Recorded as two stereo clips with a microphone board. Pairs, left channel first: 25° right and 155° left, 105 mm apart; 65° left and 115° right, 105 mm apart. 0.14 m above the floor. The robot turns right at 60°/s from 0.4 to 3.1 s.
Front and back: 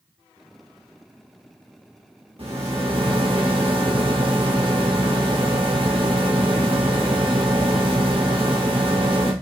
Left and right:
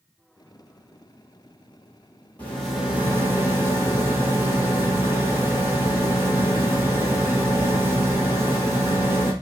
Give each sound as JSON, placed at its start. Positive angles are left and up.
{"t": 2.4, "sound": "a rattle", "azimuth_deg": 140, "distance_m": 1.5}